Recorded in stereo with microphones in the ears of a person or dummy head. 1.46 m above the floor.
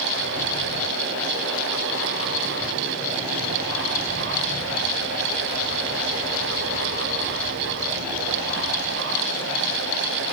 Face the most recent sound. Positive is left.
No sound to turn to.